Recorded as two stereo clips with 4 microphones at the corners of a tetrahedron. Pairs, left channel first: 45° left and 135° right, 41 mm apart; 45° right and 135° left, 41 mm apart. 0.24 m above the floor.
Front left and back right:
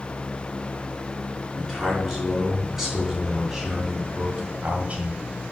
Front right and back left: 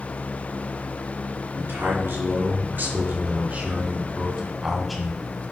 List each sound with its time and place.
1.6 s a man speaking: 135° left, 4 m; by 5.2 s 115° right, 1.9 m